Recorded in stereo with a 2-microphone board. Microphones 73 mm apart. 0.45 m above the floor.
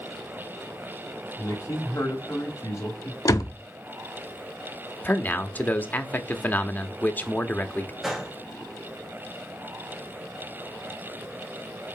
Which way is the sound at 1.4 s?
40° left (ahead or behind).